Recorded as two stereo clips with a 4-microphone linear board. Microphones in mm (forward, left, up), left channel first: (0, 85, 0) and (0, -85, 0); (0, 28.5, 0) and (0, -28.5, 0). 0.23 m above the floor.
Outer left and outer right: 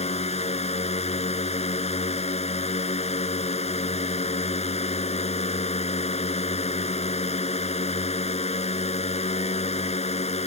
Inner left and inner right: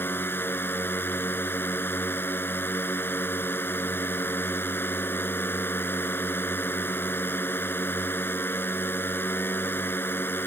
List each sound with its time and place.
0.0 s a drone: 40° left (ahead or behind)